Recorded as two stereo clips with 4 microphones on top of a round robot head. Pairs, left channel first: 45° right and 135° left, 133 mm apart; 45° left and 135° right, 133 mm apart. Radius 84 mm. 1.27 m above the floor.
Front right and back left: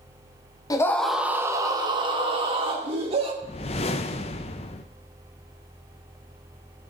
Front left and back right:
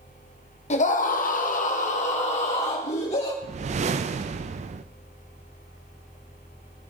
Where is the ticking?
I don't hear ticking.